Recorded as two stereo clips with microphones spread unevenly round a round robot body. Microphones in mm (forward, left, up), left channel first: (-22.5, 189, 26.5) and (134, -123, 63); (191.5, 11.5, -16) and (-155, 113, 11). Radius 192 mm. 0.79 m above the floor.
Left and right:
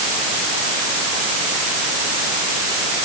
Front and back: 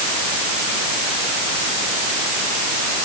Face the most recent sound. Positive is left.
No sound to turn to.